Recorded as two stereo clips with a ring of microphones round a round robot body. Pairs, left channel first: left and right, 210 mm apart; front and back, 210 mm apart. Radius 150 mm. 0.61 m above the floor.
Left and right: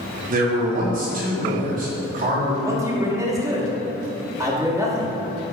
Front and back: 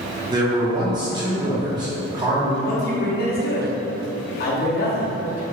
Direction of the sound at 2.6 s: 20° right.